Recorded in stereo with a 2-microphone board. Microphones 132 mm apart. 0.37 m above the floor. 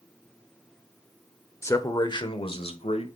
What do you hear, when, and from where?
1.6 s a man speaking: 20° left (ahead or behind), 0.8 m; by 3.2 s 55° left (ahead or behind), 1.3 m